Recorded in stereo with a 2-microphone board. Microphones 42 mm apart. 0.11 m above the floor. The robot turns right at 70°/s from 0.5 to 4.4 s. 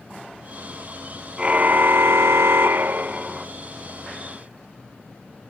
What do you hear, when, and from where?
1.4 s a car horn: 155° right; by 3.5 s 10° right